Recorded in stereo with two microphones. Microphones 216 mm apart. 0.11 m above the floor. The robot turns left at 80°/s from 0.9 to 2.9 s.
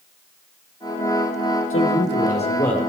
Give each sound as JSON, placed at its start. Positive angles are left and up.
{"t": 1.7, "sound": "a man speaking", "azimuth_deg": 90, "distance_m": 4.0}